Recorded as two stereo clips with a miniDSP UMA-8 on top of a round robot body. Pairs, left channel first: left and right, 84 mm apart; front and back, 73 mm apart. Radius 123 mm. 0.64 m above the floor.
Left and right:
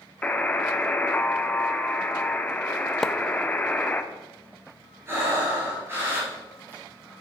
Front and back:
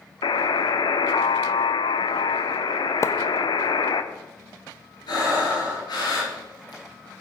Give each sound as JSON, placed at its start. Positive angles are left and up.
{"t": 0.2, "sound": "a buzzer", "azimuth_deg": 15, "distance_m": 0.9}
{"t": 3.0, "sound": "a splash", "azimuth_deg": 5, "distance_m": 0.8}
{"t": 5.1, "sound": "breathing", "azimuth_deg": -30, "distance_m": 4.5}